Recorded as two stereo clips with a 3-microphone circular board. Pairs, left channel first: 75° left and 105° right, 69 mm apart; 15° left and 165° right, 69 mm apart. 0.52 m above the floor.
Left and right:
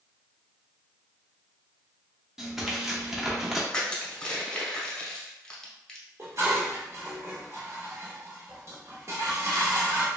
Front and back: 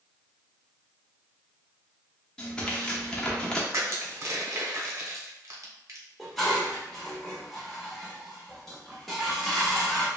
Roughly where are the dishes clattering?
Right.